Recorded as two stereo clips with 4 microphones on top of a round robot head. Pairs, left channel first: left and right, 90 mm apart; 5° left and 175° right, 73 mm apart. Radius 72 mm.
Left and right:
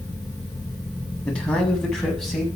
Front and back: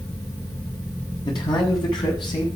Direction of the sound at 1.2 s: 10° left.